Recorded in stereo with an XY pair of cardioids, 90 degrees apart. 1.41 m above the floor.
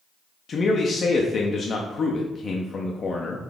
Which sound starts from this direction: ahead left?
A man speaking, at 0.5 s.